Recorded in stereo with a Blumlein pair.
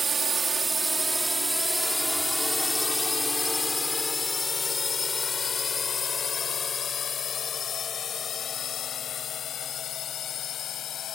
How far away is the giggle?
No giggle in this recording.